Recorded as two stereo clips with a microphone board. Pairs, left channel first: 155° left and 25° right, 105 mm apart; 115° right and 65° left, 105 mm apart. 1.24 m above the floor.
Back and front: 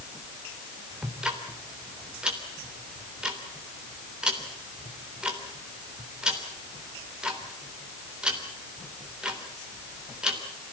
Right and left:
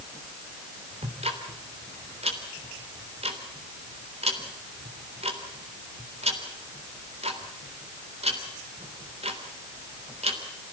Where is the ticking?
60° left, 3.5 m.